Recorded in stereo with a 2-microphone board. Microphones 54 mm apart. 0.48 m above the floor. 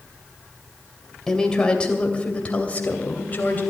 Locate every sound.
1.3 s a woman speaking: 10° left (ahead or behind), 2.5 m; by 3.6 s 35° left (ahead or behind), 3 m